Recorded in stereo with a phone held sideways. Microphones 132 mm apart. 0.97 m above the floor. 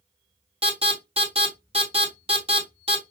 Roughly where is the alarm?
Right.